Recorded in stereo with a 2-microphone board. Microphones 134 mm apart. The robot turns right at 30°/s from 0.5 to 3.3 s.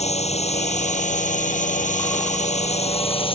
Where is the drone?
60° left (ahead or behind); by 3.4 s 45° left (ahead or behind).